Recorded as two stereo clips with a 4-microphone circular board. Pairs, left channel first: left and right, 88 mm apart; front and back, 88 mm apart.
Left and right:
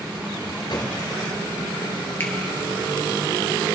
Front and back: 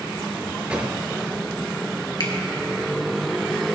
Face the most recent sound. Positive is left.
turn(degrees=30)